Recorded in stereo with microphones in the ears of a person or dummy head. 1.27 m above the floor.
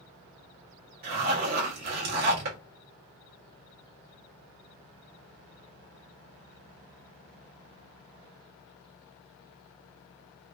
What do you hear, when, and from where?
1.0 s a zipper: 50° right (ahead or behind), 1.0 m